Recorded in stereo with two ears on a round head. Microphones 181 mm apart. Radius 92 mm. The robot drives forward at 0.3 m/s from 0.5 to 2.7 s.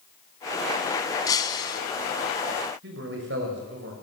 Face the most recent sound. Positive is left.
turn(degrees=-60)  # may be behind; listen again after turning